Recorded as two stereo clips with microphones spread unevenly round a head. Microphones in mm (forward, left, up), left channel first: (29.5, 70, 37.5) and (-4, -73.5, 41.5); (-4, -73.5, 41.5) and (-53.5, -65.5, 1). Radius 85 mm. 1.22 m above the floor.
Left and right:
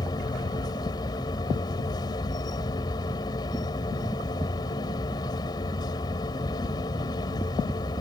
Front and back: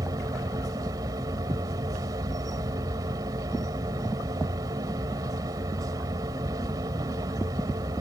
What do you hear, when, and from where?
0.0 s a machine running: 140° left